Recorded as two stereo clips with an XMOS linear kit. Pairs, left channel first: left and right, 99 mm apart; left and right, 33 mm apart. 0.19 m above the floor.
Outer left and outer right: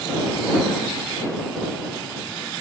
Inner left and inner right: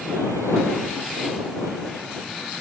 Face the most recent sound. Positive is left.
No sound to turn to.